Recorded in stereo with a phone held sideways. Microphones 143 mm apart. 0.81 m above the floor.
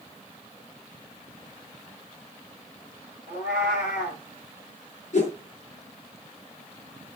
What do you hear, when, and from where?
3.3 s a cat meowing: 75° left (ahead or behind), 9 m
5.1 s a whoosh: 60° left (ahead or behind), 6.5 m